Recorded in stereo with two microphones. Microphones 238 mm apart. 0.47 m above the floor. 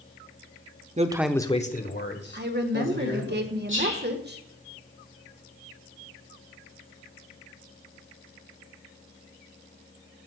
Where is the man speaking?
30° right (ahead or behind), 0.8 m; by 3.3 s 60° left (ahead or behind), 3.5 m.